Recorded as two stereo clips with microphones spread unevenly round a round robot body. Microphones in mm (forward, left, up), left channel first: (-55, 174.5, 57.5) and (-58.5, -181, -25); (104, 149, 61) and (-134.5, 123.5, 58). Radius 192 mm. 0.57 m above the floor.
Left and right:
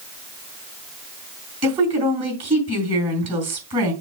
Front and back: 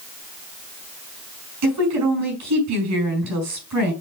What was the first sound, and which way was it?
A woman speaking, 165° right.